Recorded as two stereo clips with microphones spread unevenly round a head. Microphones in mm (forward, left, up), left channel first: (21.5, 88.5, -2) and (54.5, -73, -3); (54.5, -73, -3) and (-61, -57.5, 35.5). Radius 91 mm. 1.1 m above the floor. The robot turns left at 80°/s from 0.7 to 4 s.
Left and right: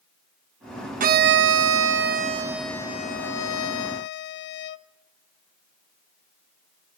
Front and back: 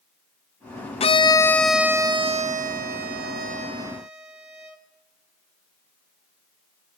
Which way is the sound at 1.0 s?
35° right.